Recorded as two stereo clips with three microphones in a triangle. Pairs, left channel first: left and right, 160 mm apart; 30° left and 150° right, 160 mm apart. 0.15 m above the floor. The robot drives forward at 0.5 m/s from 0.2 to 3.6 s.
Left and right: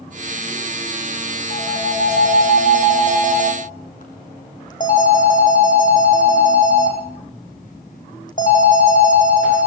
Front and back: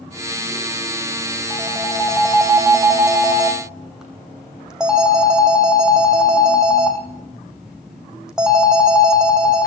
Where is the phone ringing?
115° left, 5.5 m; by 9.7 s 125° left, 6 m.